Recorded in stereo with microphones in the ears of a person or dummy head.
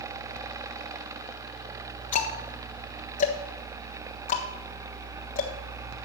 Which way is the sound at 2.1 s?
40° left (ahead or behind).